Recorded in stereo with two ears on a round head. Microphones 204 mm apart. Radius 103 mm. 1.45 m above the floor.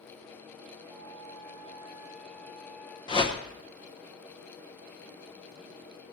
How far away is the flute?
About 4 m.